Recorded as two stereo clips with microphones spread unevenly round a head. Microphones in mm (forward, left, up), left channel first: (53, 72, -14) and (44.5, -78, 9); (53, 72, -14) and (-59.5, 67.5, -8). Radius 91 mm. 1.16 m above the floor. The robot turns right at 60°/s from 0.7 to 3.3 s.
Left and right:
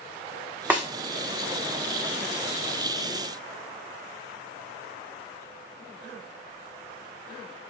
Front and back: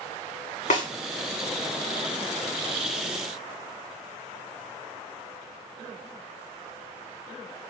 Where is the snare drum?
15° right, 1.4 m; by 0.9 s 5° right, 1.4 m.